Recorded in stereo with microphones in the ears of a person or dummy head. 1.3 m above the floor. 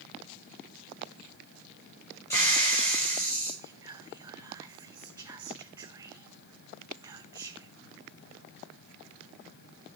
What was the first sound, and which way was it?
A hiss, 15° left (ahead or behind).